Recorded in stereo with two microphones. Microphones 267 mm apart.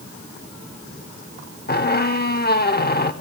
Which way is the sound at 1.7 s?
35° left (ahead or behind).